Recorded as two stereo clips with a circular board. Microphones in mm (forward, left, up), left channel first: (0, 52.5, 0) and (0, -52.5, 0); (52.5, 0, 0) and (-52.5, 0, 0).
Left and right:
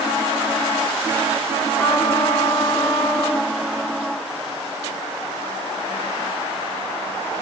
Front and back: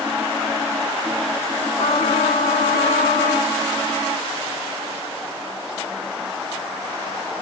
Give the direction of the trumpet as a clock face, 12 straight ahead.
12 o'clock.